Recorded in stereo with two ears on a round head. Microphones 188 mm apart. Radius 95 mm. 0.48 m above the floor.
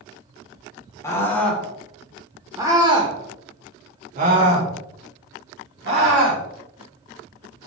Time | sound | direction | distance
1.0 | a scream | 15° left (ahead or behind) | 1.6 m